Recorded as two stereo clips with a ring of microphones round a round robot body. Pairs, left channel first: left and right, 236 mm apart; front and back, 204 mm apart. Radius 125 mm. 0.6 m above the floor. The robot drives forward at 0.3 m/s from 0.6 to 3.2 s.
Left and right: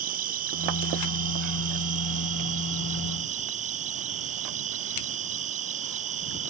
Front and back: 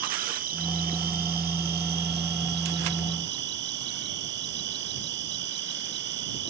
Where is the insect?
140° right; by 6.5 s 145° right.